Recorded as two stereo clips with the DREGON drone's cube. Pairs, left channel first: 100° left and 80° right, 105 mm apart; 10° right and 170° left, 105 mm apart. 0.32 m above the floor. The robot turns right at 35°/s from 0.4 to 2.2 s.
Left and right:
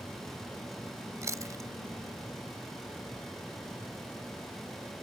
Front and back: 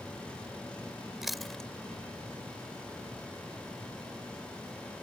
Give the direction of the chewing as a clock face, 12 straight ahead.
4 o'clock.